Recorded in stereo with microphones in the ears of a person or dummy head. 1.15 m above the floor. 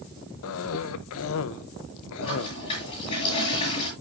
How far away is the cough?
About 0.6 m.